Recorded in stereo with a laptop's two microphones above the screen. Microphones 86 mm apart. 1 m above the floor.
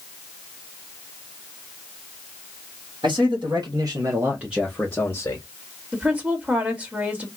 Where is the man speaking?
70° right (ahead or behind), 1.7 m; by 5.5 s 35° left (ahead or behind), 1.3 m.